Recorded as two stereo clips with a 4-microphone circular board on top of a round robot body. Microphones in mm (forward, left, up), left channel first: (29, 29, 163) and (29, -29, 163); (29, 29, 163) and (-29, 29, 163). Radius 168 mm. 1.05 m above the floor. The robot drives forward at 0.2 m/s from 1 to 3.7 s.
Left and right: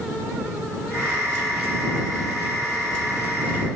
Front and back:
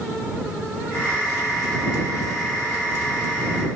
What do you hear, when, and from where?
Only background noise.